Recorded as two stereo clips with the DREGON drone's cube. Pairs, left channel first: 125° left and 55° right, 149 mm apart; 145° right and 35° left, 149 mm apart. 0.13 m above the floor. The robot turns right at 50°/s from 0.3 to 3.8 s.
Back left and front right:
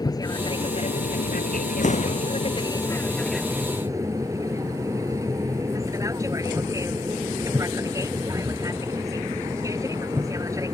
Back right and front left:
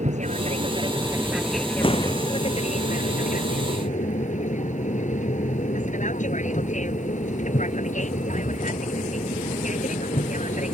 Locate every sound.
0.0 s an aircraft: 65° left; by 10.7 s 120° right
1.8 s an explosion: 160° left; by 2.3 s 175° right